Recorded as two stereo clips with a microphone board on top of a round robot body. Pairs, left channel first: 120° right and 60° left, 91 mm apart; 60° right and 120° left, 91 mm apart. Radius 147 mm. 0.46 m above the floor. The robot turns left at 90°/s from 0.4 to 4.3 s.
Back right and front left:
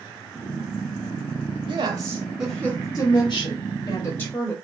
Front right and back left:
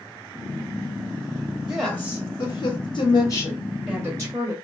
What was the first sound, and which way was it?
A woman speaking, 50° left.